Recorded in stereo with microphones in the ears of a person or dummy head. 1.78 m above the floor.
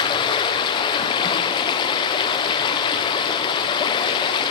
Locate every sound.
0.0 s running water: 25° left (ahead or behind), 0.7 m